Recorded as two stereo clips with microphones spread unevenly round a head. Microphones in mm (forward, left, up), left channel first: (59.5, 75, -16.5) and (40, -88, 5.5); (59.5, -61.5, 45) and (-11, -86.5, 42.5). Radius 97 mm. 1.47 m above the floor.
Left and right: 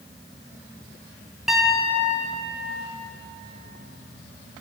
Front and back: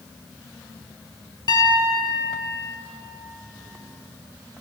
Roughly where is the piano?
Ahead.